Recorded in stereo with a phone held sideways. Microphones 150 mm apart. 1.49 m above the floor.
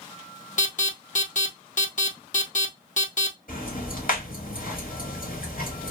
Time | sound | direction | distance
0.6 | an alarm | 60° left (ahead or behind) | 0.9 m
3.5 | ticking | 70° left (ahead or behind) | 1.9 m